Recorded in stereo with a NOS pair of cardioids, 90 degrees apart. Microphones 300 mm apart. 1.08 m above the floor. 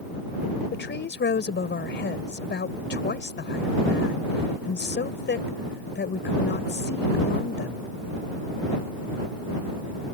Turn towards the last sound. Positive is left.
turn(degrees=35)